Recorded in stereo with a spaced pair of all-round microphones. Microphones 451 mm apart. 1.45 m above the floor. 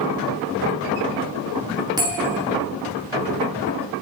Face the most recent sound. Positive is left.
turn(degrees=-10)  # may be behind; listen again after turning